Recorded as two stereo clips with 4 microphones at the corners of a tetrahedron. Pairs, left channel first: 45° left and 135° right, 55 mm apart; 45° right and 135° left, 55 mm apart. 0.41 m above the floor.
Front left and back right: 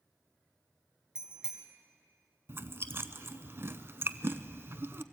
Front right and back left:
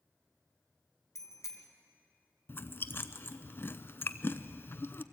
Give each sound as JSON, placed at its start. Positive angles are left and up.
{"t": 1.1, "sound": "a bicycle bell", "azimuth_deg": -60, "distance_m": 2.0}
{"t": 2.5, "sound": "chewing", "azimuth_deg": -90, "distance_m": 0.7}